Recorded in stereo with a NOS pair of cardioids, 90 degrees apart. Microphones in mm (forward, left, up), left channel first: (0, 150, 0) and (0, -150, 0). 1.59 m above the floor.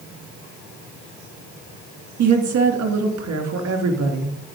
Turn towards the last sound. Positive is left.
turn(degrees=-70)